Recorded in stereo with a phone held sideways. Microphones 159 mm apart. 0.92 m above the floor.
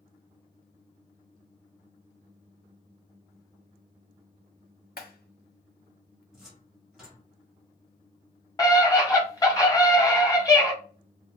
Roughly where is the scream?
Left.